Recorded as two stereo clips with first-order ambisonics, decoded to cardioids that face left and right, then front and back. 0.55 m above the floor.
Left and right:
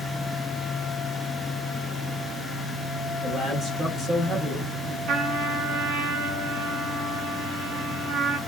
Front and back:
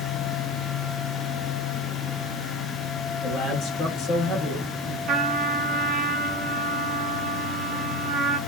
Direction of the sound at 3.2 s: 25° right.